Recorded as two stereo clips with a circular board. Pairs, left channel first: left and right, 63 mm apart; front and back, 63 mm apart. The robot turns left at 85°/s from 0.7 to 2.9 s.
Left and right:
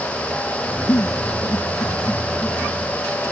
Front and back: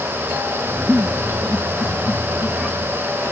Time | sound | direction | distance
0.9 | a giggle | 125° left | ?